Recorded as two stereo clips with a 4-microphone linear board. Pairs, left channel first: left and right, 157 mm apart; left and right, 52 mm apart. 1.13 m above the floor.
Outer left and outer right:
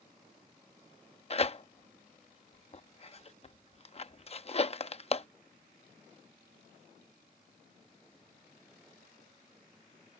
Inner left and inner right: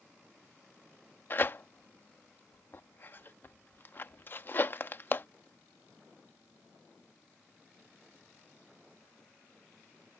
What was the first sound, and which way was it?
Tearing paper, 40° left (ahead or behind).